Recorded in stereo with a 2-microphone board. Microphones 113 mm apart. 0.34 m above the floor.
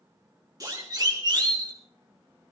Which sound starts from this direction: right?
A siren, at 0.6 s.